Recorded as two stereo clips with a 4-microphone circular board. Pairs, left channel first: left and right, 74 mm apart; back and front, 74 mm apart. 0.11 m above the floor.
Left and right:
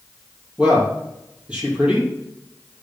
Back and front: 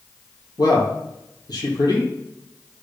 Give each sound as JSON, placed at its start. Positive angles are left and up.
{"t": 0.6, "sound": "a man speaking", "azimuth_deg": -160, "distance_m": 2.5}